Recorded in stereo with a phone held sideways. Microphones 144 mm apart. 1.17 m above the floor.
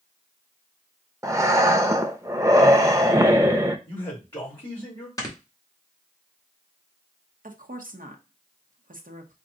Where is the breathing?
20° right (ahead or behind), 0.6 m.